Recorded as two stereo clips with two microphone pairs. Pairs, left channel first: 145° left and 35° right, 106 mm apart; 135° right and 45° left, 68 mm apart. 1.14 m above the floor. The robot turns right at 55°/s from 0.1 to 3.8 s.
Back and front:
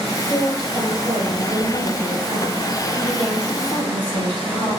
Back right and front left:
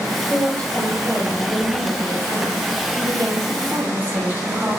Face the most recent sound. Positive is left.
turn(degrees=95)